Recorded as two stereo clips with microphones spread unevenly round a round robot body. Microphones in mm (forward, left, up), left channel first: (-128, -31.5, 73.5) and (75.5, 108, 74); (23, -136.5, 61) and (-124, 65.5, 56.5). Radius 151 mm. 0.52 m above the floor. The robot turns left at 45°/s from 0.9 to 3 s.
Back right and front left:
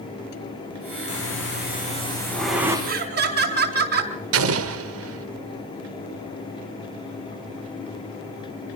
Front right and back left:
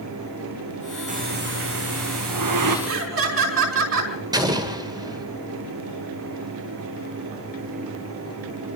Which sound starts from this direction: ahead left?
An explosion, at 4.3 s.